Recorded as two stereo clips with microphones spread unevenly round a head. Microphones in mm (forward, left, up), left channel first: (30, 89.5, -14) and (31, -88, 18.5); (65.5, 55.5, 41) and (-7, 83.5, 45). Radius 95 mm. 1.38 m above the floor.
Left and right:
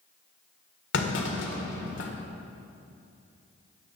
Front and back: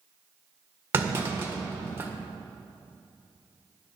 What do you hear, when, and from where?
0.9 s a clunk: 100° left, 1.6 m